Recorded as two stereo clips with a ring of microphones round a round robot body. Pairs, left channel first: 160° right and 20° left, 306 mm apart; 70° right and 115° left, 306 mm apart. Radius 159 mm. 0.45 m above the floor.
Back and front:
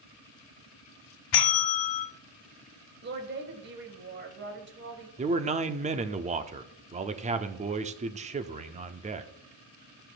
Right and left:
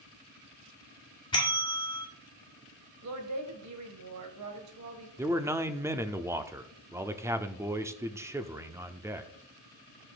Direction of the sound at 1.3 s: 145° right.